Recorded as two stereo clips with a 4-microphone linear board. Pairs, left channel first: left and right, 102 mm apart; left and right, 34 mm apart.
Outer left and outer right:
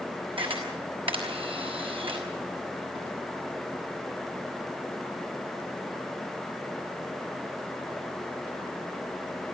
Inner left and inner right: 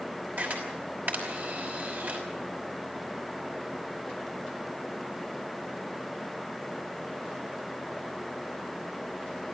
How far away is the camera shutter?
About 5.5 m.